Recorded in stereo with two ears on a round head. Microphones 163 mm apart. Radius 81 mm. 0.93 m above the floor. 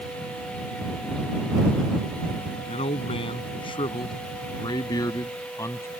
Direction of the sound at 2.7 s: 35° left (ahead or behind).